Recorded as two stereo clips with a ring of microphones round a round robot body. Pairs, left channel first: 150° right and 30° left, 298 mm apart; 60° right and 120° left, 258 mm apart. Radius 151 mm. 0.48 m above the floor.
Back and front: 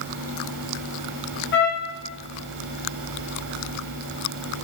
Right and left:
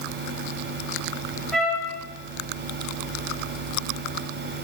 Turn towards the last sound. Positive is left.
turn(degrees=-145)